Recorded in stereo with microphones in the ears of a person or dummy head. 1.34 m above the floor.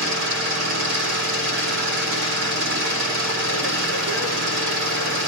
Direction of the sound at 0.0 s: 70° right (ahead or behind).